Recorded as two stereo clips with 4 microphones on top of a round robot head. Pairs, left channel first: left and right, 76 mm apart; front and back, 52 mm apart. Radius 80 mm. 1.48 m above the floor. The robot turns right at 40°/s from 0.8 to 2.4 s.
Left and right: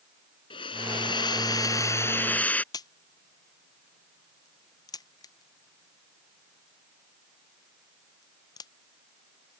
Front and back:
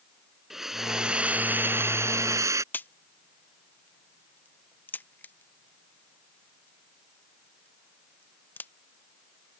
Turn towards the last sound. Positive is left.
turn(degrees=50)